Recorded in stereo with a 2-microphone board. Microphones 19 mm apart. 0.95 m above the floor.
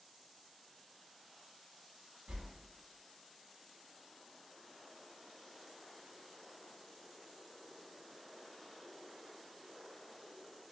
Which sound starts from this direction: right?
A whoosh, at 2.3 s.